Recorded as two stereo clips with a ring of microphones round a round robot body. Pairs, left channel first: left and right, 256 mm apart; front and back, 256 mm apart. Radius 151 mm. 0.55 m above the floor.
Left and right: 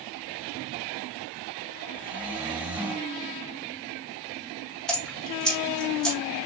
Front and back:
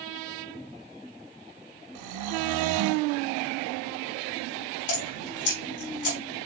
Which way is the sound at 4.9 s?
Straight ahead.